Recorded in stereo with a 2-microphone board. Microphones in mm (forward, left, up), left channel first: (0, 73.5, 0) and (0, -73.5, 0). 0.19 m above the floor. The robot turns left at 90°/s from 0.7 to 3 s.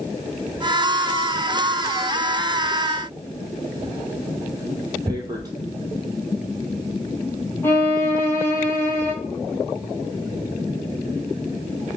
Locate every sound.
5.1 s tearing paper: 25° right (ahead or behind), 0.8 m
7.6 s a violin: 15° left (ahead or behind), 0.8 m